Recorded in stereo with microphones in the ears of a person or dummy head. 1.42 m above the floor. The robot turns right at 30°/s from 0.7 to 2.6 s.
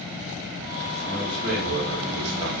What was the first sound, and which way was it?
A man speaking, 130° right.